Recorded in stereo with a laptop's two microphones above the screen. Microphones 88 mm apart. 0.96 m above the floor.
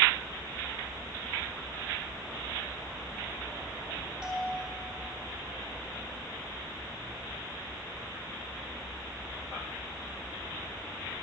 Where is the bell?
10° right (ahead or behind), 3.5 m.